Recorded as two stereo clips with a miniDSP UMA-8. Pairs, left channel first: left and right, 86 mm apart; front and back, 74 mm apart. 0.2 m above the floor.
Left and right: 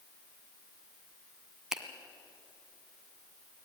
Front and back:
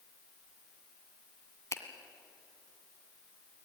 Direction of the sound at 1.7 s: 10° right.